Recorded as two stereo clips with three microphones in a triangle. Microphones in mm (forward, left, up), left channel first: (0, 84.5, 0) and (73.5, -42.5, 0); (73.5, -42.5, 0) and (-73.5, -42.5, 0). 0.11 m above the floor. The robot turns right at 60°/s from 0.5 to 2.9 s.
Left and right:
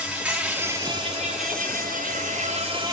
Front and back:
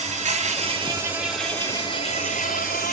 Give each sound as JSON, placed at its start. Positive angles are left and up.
{"t": 0.0, "sound": "an insect", "azimuth_deg": -140, "distance_m": 1.0}